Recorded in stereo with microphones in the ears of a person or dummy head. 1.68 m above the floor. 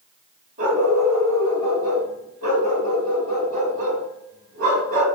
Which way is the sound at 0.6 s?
45° right (ahead or behind).